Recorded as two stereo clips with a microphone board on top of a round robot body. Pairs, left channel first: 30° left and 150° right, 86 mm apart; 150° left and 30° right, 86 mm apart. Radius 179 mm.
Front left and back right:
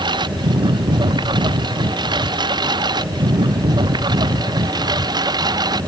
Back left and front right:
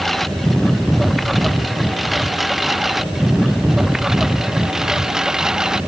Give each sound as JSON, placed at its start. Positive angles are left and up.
{"t": 0.0, "sound": "a lawn mower", "azimuth_deg": -120}